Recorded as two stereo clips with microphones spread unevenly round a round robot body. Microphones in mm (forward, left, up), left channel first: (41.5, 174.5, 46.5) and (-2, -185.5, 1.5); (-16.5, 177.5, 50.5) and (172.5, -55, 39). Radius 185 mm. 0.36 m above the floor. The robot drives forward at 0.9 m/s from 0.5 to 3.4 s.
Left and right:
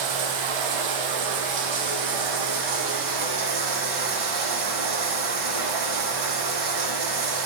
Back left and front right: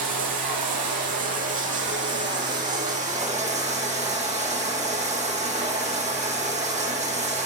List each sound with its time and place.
0.0 s running water: 95° right, 4.5 m; by 7.5 s 125° right, 5.5 m